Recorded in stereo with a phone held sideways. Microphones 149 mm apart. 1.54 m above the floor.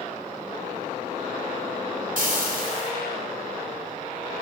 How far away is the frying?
About 4 m.